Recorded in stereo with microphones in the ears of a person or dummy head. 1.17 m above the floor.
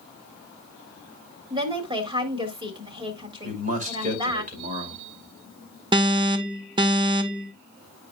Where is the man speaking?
40° right (ahead or behind), 2.5 m.